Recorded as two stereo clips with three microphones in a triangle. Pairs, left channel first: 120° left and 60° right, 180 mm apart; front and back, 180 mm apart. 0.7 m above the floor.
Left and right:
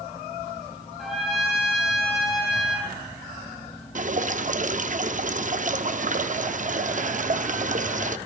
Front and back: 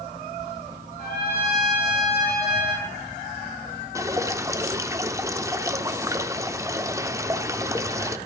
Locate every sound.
1.0 s a trumpet: 30° left, 7 m
4.0 s dripping: 110° right, 0.6 m